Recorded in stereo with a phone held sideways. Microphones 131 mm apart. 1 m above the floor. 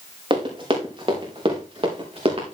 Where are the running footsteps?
45° right (ahead or behind), 5.5 m.